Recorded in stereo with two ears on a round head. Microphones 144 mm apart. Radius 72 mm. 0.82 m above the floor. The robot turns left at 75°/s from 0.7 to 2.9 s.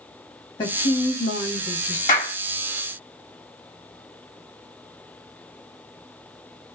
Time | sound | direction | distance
0.6 | a woman speaking | 150° left | 1.3 m
2.1 | a clap | 50° left (ahead or behind) | 1.9 m